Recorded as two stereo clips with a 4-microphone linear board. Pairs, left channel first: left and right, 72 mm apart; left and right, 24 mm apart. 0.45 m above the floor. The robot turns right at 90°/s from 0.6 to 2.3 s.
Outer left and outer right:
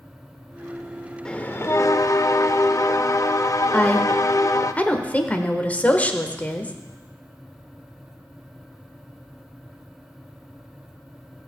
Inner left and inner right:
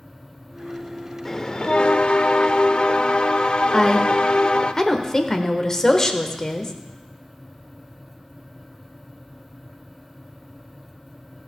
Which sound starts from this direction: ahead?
A bell, at 1.2 s.